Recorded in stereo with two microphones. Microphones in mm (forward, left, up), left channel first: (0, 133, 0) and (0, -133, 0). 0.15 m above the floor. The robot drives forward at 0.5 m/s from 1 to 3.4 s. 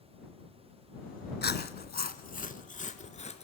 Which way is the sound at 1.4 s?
40° left (ahead or behind).